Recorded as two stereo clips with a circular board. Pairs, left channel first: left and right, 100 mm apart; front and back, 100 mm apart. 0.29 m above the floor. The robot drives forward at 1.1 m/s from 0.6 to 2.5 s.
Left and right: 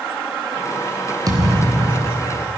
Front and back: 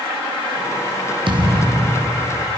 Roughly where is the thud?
Behind right.